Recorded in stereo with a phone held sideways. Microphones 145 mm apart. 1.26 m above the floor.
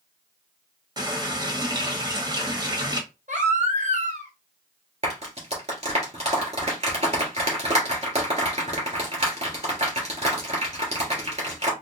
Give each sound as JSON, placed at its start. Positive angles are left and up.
{"t": 1.0, "sound": "a running tap", "side_deg": -25, "distance_m": 1.3}
{"t": 3.3, "sound": "a baby crying", "side_deg": -55, "distance_m": 1.4}
{"t": 5.0, "sound": "a clap", "side_deg": -50, "distance_m": 2.5}